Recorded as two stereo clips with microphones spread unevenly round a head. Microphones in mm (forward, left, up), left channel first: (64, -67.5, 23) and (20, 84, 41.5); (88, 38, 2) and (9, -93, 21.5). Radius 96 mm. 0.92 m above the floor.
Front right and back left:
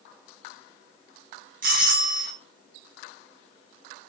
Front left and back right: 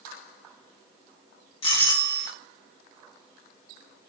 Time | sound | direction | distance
1.6 | a doorbell | 95° left | 1.9 m